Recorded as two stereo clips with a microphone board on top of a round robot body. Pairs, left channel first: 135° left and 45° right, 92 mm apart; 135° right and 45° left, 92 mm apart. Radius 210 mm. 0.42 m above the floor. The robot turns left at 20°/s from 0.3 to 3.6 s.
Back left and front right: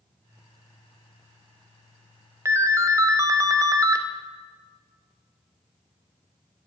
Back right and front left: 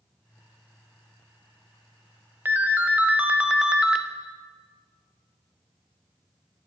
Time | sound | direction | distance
2.5 | a ringtone | 10° right | 0.7 m